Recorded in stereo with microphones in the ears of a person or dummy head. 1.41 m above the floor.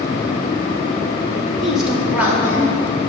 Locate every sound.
1.6 s a woman speaking: centre (ahead or behind), 1.6 m; by 3.1 s 15° right (ahead or behind), 3.5 m